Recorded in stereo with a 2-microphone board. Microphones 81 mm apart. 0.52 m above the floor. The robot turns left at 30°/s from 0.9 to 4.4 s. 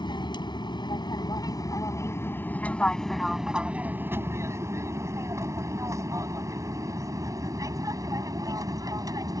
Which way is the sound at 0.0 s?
70° left (ahead or behind).